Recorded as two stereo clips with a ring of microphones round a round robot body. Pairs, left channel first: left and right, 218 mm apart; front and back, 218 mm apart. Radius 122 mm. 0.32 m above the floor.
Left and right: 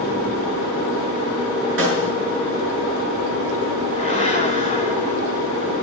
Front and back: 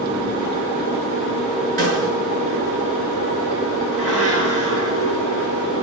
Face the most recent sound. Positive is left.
turn(degrees=-150)